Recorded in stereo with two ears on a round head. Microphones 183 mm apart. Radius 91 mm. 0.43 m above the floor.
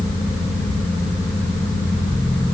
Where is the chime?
No chime in this recording.